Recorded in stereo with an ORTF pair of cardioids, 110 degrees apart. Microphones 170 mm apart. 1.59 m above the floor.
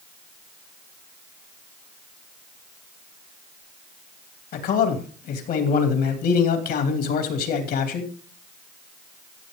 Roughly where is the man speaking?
Ahead left.